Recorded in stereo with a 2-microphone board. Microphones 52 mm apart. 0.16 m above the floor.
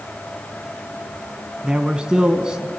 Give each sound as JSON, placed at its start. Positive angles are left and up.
{"t": 1.6, "sound": "a man speaking", "side_deg": -15, "distance_m": 1.1}